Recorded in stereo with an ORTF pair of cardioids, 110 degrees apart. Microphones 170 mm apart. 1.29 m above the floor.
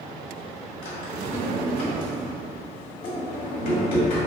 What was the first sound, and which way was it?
A drawer, 60° left.